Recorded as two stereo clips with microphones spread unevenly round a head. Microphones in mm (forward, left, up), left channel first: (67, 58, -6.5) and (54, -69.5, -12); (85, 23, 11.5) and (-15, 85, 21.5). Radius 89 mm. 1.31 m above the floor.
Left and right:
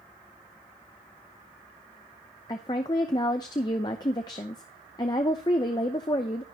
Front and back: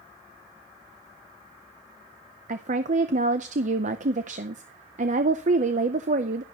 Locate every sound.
2.5 s a woman speaking: 150° left, 0.6 m